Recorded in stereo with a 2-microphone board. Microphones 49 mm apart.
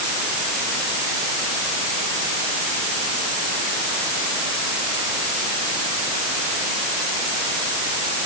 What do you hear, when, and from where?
Only background noise.